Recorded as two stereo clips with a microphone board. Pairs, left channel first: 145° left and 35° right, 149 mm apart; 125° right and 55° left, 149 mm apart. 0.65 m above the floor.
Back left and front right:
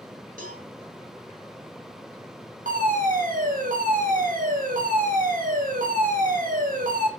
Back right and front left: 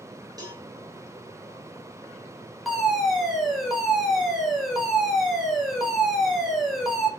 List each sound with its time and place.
0.4 s a cowbell: 10° right, 5 m
2.6 s a fire alarm: 35° right, 4 m